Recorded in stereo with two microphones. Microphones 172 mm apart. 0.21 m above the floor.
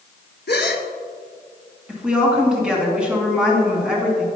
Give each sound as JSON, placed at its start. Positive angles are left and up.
{"t": 0.5, "sound": "a gasp", "side_deg": 80, "distance_m": 0.7}
{"t": 1.9, "sound": "a woman speaking", "side_deg": -5, "distance_m": 2.5}